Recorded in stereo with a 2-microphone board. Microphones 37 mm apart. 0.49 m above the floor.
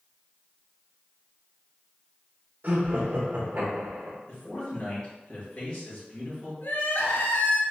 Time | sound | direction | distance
2.6 | laughter | 45° right (ahead or behind) | 1.3 m
4.3 | a man speaking | 30° left (ahead or behind) | 1.9 m
6.6 | crying | 65° left (ahead or behind) | 0.8 m